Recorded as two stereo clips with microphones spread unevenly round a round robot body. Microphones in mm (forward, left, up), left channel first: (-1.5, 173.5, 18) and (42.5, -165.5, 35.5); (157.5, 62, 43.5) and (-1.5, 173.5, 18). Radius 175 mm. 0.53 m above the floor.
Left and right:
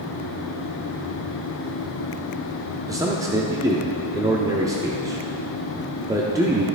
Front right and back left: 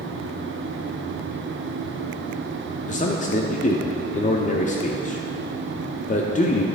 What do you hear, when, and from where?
2.9 s a man speaking: 5° right, 0.8 m